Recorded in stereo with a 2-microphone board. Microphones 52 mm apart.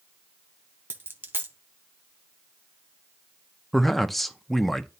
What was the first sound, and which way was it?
A dropped coin, 45° right (ahead or behind).